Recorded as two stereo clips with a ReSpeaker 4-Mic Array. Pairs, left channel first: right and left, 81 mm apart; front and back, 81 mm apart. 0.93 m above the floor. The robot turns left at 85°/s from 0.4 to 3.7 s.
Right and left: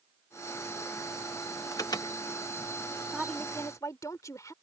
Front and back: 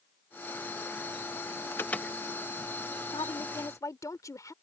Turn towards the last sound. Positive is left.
turn(degrees=-45)